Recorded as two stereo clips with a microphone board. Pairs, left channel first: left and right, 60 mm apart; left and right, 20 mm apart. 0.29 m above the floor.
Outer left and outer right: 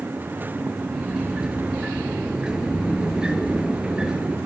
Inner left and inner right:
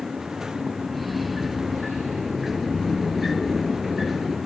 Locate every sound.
0.9 s a sliding door: 10° right (ahead or behind), 5 m